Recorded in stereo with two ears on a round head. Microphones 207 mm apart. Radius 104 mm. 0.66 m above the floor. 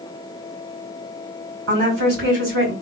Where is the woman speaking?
65° right (ahead or behind), 2.5 m.